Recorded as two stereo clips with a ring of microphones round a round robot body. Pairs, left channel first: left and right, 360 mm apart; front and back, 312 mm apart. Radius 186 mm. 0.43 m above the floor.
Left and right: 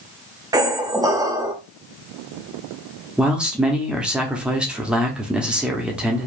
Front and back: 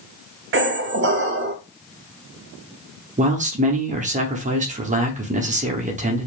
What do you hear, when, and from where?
0.5 s a squeak: 165° right, 0.6 m
3.2 s a man speaking: 175° right, 0.7 m